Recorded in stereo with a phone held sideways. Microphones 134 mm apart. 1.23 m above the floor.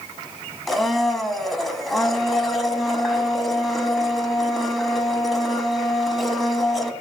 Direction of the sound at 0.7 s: Centre (ahead or behind).